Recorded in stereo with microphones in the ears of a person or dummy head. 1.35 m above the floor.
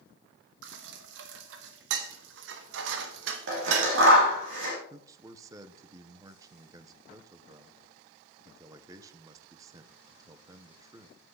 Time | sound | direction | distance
0.6 | dishes clattering | 70° right (ahead or behind) | 1.3 m
3.5 | scissors | 75° right (ahead or behind) | 5.5 m
4.9 | a man speaking | 25° right (ahead or behind) | 1.0 m